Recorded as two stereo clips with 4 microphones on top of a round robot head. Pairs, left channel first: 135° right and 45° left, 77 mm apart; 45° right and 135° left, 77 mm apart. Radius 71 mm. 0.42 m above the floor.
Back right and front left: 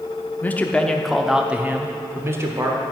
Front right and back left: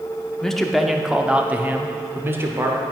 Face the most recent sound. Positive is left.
turn(degrees=85)